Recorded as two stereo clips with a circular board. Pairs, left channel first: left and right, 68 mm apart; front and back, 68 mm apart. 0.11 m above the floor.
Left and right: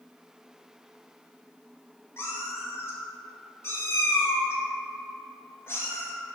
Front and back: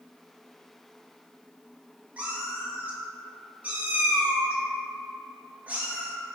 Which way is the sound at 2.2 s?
120° left.